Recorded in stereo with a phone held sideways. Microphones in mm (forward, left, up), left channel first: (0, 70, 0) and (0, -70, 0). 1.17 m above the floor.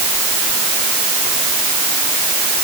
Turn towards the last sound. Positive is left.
No sound to turn to.